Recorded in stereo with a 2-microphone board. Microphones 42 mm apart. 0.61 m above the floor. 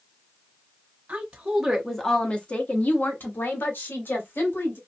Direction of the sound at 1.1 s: 25° right (ahead or behind).